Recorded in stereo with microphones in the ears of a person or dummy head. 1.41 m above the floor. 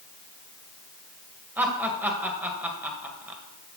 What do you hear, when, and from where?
1.6 s laughter: 10° right (ahead or behind), 1.4 m